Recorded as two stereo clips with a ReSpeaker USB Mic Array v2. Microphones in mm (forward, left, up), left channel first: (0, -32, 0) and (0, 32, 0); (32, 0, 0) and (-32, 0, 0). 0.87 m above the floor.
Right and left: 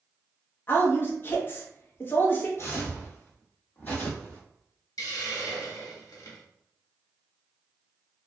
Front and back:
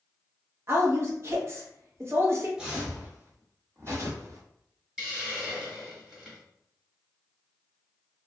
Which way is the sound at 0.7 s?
140° right.